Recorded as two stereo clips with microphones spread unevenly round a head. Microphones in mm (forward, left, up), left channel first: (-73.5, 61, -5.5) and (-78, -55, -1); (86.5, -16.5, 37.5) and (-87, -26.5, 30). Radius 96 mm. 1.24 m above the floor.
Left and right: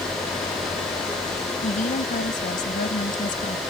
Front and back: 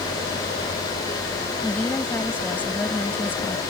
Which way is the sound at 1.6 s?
85° left.